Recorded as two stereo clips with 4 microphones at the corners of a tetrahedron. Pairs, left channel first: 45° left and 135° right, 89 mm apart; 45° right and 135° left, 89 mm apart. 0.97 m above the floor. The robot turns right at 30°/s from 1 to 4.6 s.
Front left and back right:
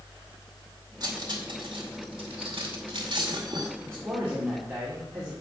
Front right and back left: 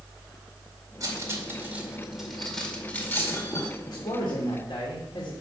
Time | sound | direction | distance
1.0 | cutlery clinking | 175° right | 2 m
3.8 | a man speaking | 80° right | 3 m